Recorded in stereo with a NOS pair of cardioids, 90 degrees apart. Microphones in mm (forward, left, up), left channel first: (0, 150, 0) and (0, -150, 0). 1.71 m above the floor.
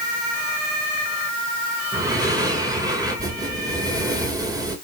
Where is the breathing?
10° right, 4 m.